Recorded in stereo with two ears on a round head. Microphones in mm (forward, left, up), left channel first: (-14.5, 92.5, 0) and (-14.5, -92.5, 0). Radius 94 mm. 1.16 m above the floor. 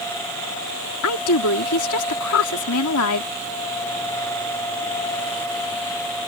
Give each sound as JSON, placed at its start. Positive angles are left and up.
{"t": 1.0, "sound": "a woman speaking", "side_deg": 85}